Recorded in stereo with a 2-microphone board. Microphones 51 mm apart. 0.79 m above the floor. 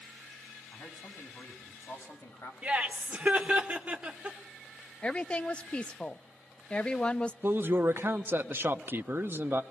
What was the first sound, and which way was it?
A man speaking, 65° left (ahead or behind).